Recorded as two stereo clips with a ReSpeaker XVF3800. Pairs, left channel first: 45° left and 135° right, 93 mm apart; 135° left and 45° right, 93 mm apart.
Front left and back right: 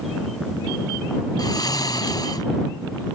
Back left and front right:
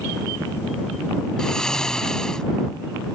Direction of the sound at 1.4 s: 55° left.